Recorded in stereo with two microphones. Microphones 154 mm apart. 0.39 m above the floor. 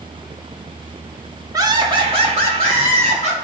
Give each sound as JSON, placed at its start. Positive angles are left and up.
{"t": 1.5, "sound": "laughter", "side_deg": -20, "distance_m": 1.0}